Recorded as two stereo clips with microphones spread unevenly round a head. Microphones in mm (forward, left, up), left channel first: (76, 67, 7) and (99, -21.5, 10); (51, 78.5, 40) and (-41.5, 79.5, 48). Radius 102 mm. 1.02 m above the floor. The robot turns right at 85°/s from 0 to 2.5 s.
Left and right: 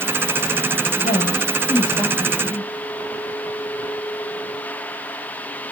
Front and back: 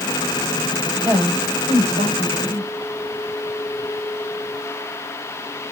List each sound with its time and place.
1.0 s a woman speaking: 105° left, 4 m; by 2.7 s 130° right, 4 m